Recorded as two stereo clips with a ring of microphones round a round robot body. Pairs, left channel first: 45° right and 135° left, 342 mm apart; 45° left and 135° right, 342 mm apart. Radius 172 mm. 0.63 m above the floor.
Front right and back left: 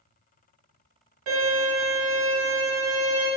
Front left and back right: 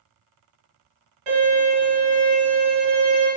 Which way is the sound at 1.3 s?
Straight behind.